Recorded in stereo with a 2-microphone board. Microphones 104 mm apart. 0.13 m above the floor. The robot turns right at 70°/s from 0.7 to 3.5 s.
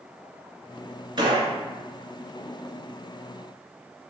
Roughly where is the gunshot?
Right.